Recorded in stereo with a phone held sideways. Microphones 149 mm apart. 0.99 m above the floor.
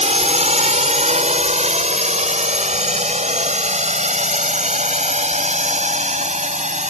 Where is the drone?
50° right (ahead or behind).